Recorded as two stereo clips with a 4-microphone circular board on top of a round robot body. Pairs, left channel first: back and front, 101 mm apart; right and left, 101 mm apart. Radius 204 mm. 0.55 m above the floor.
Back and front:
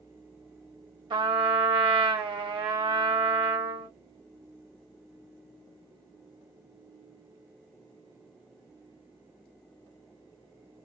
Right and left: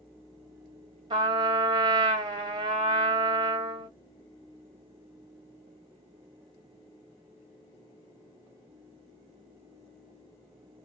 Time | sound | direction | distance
1.1 | a trumpet | 45° left | 1.1 m